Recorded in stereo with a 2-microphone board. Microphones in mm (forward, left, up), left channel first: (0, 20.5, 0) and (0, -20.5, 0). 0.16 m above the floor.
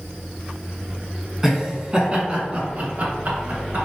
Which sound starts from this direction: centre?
Laughter, at 1.4 s.